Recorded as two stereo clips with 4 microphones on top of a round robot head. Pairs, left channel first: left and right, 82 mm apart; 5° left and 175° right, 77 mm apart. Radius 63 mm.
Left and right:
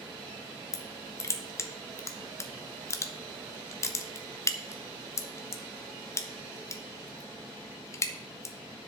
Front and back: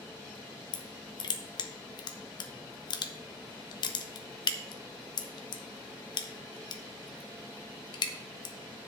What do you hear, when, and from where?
0.7 s crushing: 35° left, 1.0 m